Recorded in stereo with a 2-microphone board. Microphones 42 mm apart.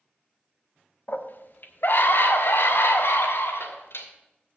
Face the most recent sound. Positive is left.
turn(degrees=80)